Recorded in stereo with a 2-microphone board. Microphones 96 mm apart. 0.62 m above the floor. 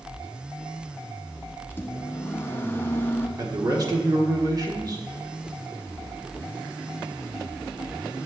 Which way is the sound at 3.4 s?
40° right (ahead or behind).